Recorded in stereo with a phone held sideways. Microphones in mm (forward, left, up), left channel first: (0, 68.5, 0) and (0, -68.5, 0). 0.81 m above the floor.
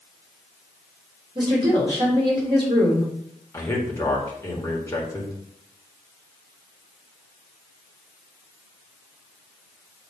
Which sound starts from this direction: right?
A woman speaking, at 1.4 s.